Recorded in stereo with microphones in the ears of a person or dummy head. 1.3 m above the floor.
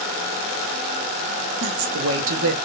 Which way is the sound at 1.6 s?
75° right (ahead or behind).